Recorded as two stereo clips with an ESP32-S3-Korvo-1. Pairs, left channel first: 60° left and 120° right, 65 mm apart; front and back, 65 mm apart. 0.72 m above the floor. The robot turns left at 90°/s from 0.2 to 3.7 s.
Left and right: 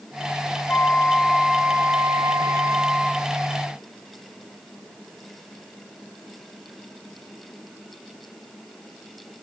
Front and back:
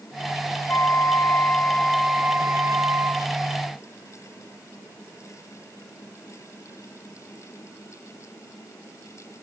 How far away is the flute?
About 0.9 m.